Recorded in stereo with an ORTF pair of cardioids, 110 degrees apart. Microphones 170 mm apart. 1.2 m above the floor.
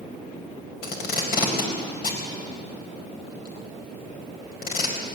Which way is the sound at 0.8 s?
65° left.